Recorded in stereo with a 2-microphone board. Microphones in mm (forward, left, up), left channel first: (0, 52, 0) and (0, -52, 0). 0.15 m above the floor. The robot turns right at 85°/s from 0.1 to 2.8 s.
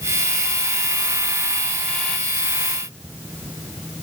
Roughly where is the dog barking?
No dog barking in this recording.